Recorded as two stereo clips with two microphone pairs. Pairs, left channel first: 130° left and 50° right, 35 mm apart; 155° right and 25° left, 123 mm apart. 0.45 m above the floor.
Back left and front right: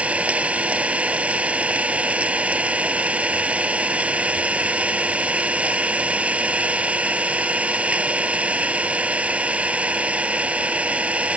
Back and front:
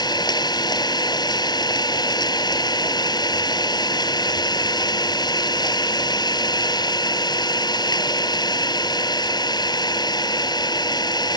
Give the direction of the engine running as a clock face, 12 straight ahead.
3 o'clock.